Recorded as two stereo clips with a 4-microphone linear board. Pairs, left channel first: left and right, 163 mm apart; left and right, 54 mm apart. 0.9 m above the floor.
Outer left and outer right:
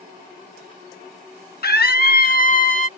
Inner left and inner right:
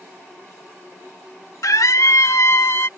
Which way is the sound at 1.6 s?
70° left (ahead or behind).